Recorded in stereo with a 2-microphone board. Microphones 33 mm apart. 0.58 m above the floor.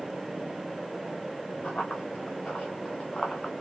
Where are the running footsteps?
40° left (ahead or behind), 2.5 m; by 3.5 s 20° left (ahead or behind), 2.0 m.